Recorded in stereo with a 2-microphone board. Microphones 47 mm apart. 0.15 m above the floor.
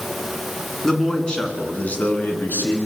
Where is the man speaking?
10° left (ahead or behind), 1.8 m; by 2.8 s 45° left (ahead or behind), 2 m.